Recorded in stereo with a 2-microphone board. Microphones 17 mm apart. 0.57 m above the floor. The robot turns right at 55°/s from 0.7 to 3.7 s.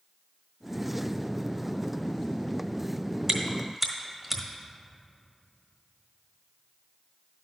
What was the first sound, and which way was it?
Chewing, 30° right (ahead or behind).